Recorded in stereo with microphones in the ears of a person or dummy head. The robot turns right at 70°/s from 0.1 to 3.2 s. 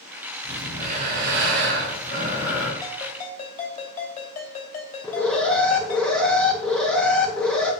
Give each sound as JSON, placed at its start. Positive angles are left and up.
{"t": 0.4, "sound": "breathing", "azimuth_deg": -165, "distance_m": 2.5}
{"t": 2.8, "sound": "a ringtone", "side_deg": 10, "distance_m": 3.0}
{"t": 5.0, "sound": "an alarm", "side_deg": 10, "distance_m": 1.0}